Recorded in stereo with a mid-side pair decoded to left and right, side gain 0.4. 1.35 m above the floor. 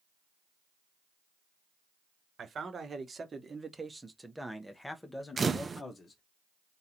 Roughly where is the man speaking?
Ahead right.